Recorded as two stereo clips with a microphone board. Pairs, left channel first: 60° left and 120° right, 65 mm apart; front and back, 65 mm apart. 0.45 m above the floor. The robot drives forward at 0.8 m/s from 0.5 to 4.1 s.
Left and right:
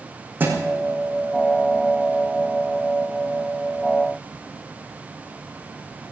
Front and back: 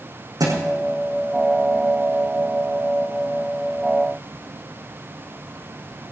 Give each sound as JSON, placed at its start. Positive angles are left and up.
{"t": 0.4, "sound": "a thud", "azimuth_deg": 180, "distance_m": 6.0}